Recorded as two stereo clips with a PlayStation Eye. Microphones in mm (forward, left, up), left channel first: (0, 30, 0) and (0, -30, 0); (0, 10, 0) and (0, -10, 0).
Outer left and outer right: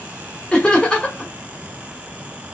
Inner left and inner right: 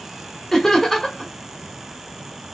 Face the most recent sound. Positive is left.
turn(degrees=15)  # may be behind; listen again after turning